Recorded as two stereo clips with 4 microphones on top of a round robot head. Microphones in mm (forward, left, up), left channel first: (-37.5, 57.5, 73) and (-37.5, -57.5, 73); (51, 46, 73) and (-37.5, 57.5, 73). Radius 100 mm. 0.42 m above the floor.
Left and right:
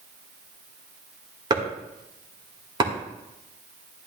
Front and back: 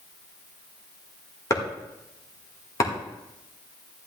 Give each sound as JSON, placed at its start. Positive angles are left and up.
{"t": 1.5, "sound": "chopping", "azimuth_deg": -50, "distance_m": 2.0}